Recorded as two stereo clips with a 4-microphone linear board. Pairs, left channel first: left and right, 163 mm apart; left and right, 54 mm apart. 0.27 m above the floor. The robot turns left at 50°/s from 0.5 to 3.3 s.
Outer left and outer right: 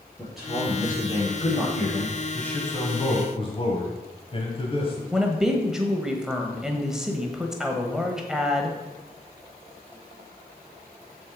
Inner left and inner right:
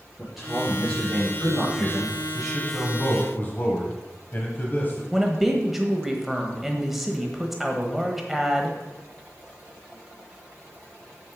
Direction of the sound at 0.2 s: Straight behind.